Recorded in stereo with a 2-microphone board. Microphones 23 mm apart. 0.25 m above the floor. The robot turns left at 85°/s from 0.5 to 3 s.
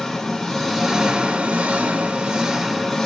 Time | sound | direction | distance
0.0 | an engine running | 20° left | 1.2 m